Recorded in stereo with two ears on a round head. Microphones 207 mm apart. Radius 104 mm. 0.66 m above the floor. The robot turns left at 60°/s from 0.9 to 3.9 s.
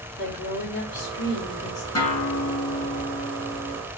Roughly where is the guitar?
Ahead.